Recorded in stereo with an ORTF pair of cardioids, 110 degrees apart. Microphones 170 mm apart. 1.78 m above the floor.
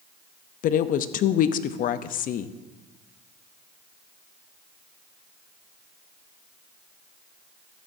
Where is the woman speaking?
60° left, 0.6 m.